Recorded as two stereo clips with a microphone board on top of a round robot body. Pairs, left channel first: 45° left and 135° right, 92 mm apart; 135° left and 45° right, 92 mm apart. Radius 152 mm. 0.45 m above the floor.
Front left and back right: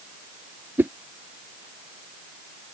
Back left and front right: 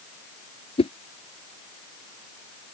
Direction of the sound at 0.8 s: 155° left.